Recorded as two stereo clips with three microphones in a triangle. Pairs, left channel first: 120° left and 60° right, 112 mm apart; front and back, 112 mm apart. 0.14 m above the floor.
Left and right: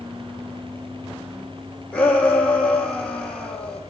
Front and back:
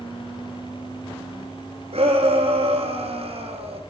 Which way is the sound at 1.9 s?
160° right.